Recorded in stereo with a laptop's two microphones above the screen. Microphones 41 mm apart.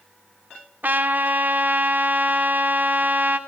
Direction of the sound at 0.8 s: 50° right (ahead or behind).